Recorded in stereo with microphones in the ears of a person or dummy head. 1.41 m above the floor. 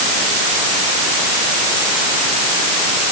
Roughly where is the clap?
No clap in this recording.